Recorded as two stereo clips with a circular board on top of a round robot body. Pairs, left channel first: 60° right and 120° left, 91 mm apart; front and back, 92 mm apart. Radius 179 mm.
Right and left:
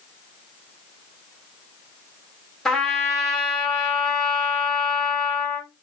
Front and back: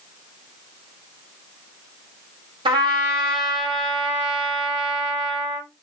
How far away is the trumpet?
About 0.6 m.